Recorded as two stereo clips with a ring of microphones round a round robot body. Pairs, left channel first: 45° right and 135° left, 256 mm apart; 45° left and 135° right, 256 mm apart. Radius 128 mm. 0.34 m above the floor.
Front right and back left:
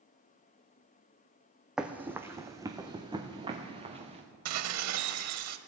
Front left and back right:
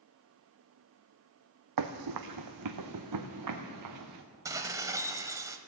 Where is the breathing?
No breathing in this recording.